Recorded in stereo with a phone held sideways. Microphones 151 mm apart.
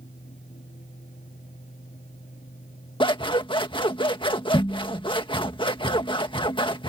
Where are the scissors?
30° left (ahead or behind).